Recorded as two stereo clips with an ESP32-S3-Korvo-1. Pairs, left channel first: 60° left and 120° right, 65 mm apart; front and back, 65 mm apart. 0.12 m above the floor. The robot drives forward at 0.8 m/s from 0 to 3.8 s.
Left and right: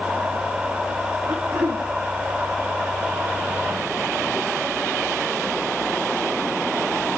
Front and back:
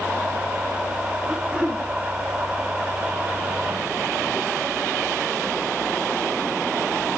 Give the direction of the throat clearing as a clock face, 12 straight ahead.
4 o'clock.